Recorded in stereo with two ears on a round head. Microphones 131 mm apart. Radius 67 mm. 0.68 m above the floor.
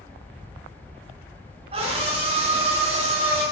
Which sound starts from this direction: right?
A scream, at 1.7 s.